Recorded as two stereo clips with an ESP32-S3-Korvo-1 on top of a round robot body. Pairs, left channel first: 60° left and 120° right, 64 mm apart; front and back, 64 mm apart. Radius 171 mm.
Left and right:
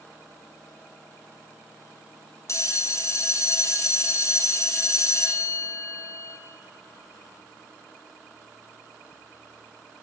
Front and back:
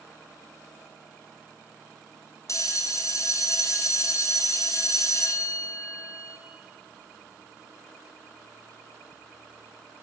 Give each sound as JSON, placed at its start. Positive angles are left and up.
{"t": 2.5, "sound": "a bell", "azimuth_deg": 30, "distance_m": 1.0}